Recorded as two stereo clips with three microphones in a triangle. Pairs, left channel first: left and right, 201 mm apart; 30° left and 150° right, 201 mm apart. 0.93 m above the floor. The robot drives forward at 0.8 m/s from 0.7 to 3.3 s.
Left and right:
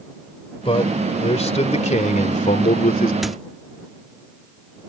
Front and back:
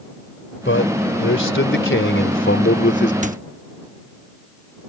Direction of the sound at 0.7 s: 30° left.